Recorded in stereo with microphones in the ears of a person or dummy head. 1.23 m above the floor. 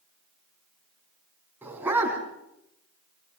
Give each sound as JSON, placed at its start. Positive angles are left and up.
{"t": 1.6, "sound": "a dog barking", "side_deg": -10, "distance_m": 3.5}